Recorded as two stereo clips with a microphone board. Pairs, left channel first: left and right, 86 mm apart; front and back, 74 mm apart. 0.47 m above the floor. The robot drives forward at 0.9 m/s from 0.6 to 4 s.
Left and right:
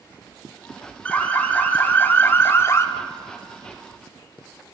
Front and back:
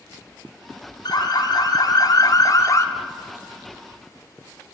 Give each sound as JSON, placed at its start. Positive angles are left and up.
{"t": 1.1, "sound": "an alarm", "azimuth_deg": 15, "distance_m": 3.0}